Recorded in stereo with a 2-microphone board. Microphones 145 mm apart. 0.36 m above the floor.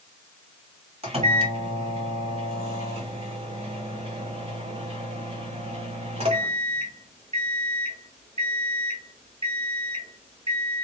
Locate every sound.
1.0 s a microwave: 45° right (ahead or behind), 1.6 m